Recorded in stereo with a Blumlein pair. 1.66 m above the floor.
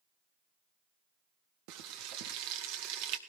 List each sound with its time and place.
1.7 s frying: 45° right, 1.8 m